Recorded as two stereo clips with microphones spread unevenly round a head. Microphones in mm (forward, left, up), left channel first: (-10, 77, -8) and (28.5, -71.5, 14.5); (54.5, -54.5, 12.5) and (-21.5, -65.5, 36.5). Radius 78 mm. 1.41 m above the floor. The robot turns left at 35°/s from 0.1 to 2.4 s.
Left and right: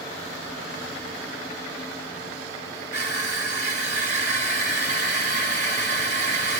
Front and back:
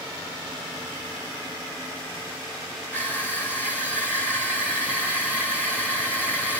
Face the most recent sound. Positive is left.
turn(degrees=-110)